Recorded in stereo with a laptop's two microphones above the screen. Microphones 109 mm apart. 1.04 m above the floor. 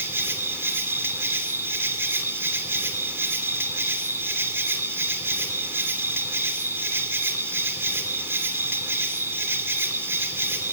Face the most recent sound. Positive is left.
turn(degrees=-20)  # may be behind; listen again after turning